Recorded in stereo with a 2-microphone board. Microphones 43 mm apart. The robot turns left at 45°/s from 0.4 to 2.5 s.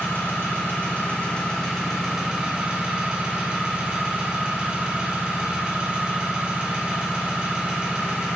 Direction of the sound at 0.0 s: 65° left.